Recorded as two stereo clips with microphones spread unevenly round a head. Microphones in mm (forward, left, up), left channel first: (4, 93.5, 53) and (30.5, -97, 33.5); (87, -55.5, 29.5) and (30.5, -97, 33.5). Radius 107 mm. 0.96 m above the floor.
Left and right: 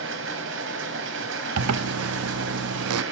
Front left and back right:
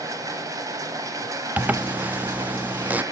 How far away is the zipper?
About 0.5 m.